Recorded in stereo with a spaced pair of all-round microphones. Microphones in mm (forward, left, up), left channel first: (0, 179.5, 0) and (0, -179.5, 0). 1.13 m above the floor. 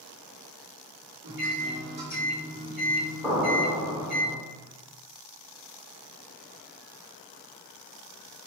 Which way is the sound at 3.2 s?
Centre (ahead or behind).